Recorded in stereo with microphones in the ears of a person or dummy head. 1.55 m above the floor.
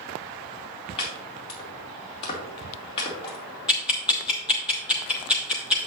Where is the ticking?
Centre (ahead or behind), 0.6 m.